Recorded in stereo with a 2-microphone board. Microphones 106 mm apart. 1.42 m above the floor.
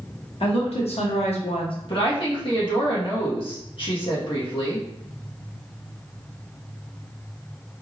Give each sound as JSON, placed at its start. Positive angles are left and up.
{"t": 0.4, "sound": "a woman speaking", "side_deg": 65, "distance_m": 1.6}
{"t": 1.9, "sound": "a woman speaking", "side_deg": 55, "distance_m": 1.6}